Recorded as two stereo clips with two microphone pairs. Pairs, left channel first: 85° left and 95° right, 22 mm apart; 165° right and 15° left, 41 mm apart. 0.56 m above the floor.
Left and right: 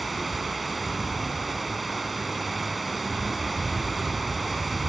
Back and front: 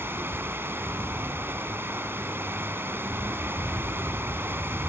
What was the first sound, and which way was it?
Running water, 5° right.